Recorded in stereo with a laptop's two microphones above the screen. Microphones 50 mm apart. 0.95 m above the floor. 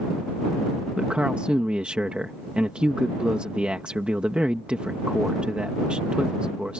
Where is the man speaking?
20° right (ahead or behind).